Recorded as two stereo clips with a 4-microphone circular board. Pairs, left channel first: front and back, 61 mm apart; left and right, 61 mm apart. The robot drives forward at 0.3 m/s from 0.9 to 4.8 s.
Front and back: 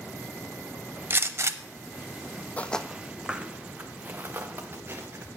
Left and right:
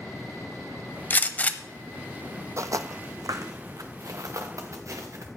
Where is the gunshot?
140° left, 0.5 m; by 1.6 s 150° left, 0.6 m.